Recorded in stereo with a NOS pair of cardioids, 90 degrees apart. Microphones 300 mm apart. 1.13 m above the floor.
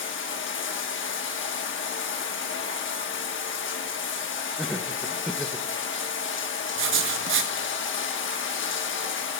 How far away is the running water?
About 1.2 m.